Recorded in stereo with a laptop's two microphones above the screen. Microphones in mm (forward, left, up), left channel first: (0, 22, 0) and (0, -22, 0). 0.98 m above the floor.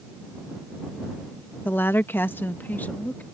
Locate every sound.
1.6 s a woman speaking: 50° left (ahead or behind); by 3.2 s 40° left (ahead or behind)